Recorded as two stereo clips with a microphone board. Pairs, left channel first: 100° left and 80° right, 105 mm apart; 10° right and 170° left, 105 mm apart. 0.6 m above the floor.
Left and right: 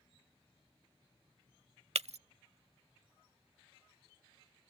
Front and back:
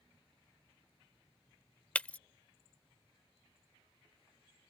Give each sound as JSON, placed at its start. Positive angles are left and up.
{"t": 1.9, "sound": "breaking glass", "azimuth_deg": -90}